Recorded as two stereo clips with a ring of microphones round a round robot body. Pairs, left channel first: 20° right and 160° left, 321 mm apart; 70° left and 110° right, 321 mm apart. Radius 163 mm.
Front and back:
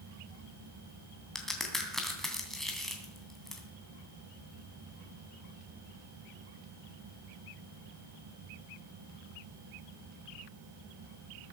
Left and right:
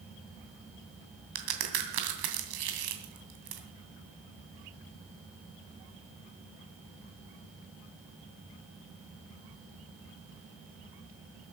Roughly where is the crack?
Right.